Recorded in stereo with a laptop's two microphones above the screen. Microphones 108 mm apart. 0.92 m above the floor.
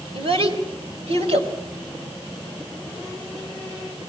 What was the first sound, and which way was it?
A child speaking, 60° right (ahead or behind).